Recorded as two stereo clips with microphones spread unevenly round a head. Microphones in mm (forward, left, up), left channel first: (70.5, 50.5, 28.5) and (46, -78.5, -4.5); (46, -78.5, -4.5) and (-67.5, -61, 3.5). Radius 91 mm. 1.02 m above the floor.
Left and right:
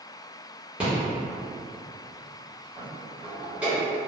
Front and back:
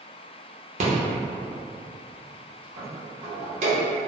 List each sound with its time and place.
0.8 s a rattle: straight behind, 0.9 m